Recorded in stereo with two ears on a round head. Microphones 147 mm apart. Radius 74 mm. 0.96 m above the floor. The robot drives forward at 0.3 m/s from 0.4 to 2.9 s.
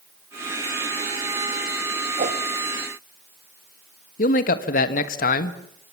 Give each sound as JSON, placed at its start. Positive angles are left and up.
{"t": 2.2, "sound": "a whoosh", "side_deg": -50, "distance_m": 1.7}
{"t": 4.2, "sound": "a man speaking", "side_deg": 55, "distance_m": 1.4}